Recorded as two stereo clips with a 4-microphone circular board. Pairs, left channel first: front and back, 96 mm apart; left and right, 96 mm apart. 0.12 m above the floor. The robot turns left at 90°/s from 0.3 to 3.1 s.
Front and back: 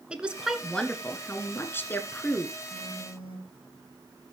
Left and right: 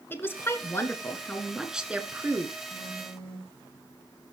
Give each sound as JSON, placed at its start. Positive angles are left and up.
{"t": 0.1, "sound": "a woman speaking", "azimuth_deg": 115, "distance_m": 1.4}
{"t": 2.7, "sound": "a phone buzzing", "azimuth_deg": -160, "distance_m": 6.5}